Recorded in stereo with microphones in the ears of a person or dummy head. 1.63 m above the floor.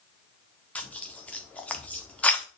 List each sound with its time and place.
0.8 s tearing paper: 10° left (ahead or behind), 0.8 m